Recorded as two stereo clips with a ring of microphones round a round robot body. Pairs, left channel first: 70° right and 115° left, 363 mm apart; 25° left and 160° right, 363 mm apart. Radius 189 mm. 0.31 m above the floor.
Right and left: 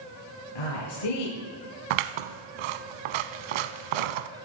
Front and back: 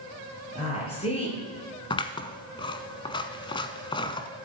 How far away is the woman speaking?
About 7 m.